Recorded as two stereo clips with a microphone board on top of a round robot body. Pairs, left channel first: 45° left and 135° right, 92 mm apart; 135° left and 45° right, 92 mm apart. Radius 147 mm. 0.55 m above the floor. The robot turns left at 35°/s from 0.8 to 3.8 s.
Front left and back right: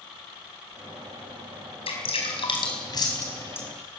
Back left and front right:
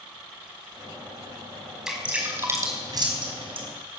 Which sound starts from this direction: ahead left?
Dripping, at 1.9 s.